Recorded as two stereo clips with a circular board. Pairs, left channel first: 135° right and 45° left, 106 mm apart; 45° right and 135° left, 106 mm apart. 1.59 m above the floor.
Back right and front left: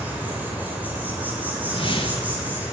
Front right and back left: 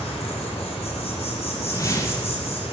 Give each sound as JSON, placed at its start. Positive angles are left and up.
{"t": 0.0, "sound": "an insect", "azimuth_deg": -30, "distance_m": 4.5}
{"t": 1.6, "sound": "a whoosh", "azimuth_deg": -100, "distance_m": 2.0}